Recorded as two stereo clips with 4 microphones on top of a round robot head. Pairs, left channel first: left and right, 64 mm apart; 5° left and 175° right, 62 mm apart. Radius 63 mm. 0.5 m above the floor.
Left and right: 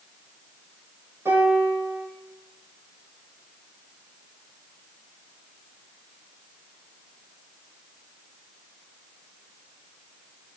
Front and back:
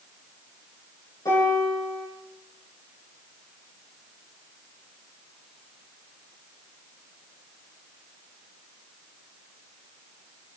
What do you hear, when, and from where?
1.2 s a piano: 40° right, 7.5 m